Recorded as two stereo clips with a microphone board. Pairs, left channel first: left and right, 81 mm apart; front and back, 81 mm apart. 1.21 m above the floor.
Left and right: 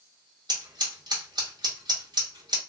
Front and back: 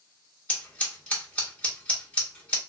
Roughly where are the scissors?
Right.